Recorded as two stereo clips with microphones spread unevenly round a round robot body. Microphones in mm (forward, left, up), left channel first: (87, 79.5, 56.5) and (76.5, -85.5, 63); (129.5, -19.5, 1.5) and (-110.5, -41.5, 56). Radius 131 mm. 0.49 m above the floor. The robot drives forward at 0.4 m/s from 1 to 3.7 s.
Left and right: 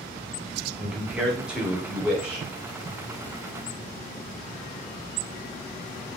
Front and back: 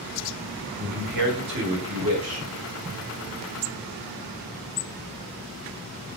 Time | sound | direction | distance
0.8 | a man speaking | 175° right | 1.0 m